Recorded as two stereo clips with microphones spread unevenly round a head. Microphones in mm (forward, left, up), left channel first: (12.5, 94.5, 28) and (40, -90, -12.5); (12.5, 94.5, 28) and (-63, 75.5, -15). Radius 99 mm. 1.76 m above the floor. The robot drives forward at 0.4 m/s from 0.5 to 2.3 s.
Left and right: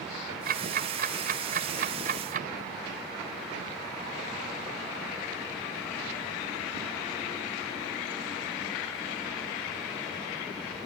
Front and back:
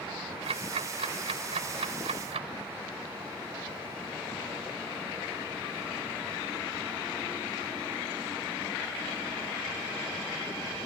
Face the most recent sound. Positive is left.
turn(degrees=-135)